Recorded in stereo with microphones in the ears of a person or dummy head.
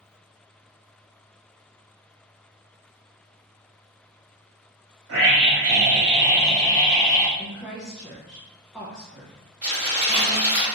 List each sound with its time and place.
5.1 s a scream: 65° right (ahead or behind), 1.5 m; by 7.3 s 50° left (ahead or behind), 1.1 m
7.4 s a woman speaking: 5° left (ahead or behind), 0.5 m
9.6 s crumpling: 25° right (ahead or behind), 1.9 m